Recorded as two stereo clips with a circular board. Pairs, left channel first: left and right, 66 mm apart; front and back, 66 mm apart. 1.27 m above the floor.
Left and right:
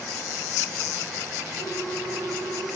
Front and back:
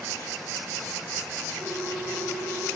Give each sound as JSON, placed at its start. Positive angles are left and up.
{"t": 1.6, "sound": "a ringtone", "azimuth_deg": 130, "distance_m": 7.0}